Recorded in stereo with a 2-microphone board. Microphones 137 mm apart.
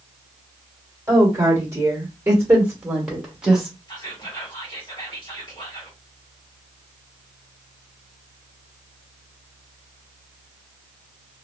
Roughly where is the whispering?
Left.